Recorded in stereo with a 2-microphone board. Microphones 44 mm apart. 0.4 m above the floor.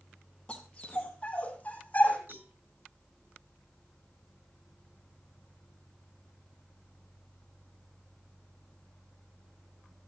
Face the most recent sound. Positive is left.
turn(degrees=-50)  # may be behind; listen again after turning